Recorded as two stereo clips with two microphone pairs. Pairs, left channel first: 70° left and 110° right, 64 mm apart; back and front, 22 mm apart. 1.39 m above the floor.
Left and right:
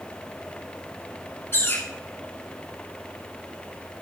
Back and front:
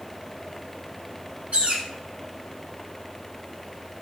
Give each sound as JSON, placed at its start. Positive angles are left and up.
{"t": 1.5, "sound": "a bird", "azimuth_deg": 20, "distance_m": 6.5}